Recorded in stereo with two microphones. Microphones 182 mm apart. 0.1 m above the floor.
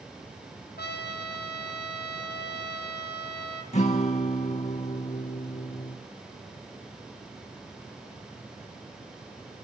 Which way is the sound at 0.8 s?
65° left (ahead or behind).